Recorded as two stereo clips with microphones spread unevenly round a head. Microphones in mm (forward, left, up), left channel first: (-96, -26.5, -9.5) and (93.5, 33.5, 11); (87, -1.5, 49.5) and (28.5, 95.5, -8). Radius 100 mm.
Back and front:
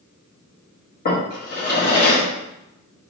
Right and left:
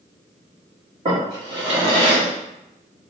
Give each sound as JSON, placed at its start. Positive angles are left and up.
{"t": 1.1, "sound": "a drawer", "azimuth_deg": -160, "distance_m": 1.2}